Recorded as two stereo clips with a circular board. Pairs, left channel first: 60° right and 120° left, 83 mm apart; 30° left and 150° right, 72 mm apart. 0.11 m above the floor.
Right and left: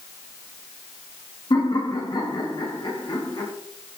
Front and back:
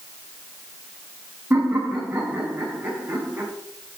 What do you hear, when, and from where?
1.5 s laughter: 90° right, 7 m